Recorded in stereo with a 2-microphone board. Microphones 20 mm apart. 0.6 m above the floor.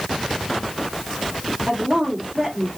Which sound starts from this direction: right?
A woman speaking, at 1.7 s.